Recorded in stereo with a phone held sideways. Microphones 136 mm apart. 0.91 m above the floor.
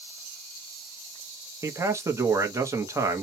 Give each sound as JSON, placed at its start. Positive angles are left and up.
{"t": 1.6, "sound": "a man speaking", "side_deg": -20, "distance_m": 0.7}